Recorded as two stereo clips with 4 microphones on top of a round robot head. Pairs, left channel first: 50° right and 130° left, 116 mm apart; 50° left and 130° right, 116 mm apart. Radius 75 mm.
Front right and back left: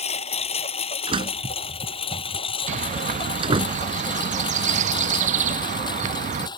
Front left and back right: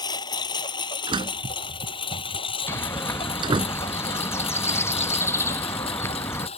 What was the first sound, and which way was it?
A lawn mower, 10° right.